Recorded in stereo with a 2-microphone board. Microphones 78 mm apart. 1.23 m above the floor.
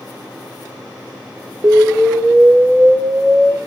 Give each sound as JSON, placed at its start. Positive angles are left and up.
{"t": 1.6, "sound": "an explosion", "side_deg": -35, "distance_m": 0.6}